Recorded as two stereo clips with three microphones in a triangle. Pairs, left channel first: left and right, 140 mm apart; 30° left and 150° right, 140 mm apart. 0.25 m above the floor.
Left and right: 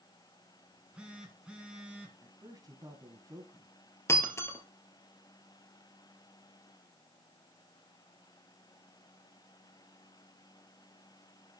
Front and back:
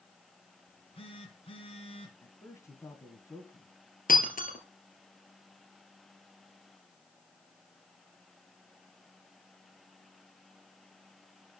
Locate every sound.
0.7 s a phone buzzing: 10° right, 2 m
2.2 s a man speaking: 35° right, 1.8 m
4.1 s breaking glass: 20° left, 2.0 m